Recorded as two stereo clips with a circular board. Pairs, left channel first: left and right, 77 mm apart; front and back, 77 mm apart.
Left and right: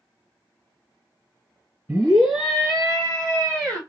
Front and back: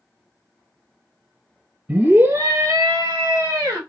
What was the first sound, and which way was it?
A scream, 150° right.